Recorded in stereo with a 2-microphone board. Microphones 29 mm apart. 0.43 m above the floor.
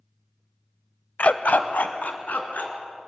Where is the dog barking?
60° left (ahead or behind), 0.7 m; by 2.7 s 85° left, 3 m.